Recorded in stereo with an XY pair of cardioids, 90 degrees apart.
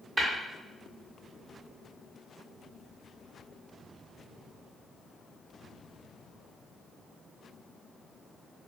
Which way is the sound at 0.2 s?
35° right.